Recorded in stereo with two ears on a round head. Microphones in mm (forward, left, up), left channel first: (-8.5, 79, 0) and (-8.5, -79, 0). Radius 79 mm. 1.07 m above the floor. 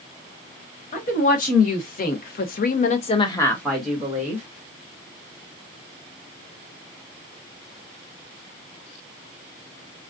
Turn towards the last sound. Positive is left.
turn(degrees=-15)  # may be behind; listen again after turning